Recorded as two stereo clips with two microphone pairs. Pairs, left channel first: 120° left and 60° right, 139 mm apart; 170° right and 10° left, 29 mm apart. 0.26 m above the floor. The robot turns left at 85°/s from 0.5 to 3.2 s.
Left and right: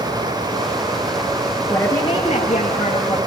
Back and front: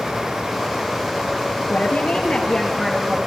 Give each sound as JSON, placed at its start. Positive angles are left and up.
{"t": 1.7, "sound": "a woman speaking", "azimuth_deg": -155, "distance_m": 5.5}